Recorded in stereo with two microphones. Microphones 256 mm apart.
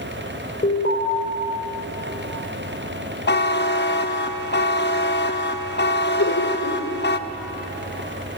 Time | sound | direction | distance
0.6 | an alarm | 35° left (ahead or behind) | 4 m
3.3 | a buzzer | 45° left (ahead or behind) | 0.7 m
6.2 | laughter | 75° left (ahead or behind) | 2.5 m